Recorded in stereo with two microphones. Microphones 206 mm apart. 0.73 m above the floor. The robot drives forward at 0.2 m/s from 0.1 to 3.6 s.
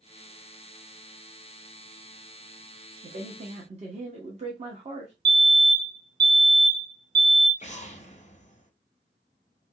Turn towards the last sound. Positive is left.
turn(degrees=35)  # may be behind; listen again after turning